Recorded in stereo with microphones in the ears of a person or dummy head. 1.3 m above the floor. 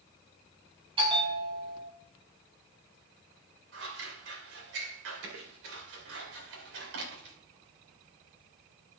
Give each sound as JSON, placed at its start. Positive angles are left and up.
{"t": 1.0, "sound": "a bell", "side_deg": -25, "distance_m": 3.5}
{"t": 3.7, "sound": "scissors", "side_deg": -85, "distance_m": 4.0}